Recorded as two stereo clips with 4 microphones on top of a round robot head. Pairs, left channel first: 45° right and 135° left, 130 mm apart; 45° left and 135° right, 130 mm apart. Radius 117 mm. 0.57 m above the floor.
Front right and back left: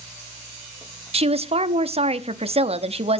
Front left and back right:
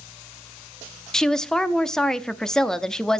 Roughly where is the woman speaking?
Behind left.